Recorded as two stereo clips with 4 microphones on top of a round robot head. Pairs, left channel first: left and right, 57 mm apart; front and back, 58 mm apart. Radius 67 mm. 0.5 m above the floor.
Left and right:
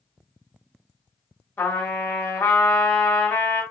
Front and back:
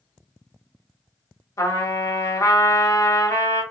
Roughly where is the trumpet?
Ahead left.